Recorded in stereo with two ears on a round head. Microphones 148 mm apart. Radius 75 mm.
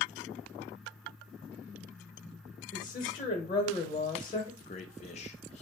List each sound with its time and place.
2.7 s a woman speaking: 25° left (ahead or behind), 1.1 m
4.6 s a man speaking: 40° left (ahead or behind), 0.6 m